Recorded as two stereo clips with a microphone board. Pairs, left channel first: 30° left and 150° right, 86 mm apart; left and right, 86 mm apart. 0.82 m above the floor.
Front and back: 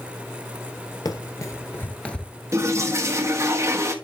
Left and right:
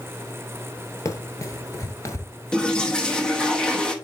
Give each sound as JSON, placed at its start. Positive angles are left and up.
{"t": 1.1, "sound": "running footsteps", "azimuth_deg": 50, "distance_m": 1.2}
{"t": 2.5, "sound": "a toilet flushing", "azimuth_deg": 165, "distance_m": 1.2}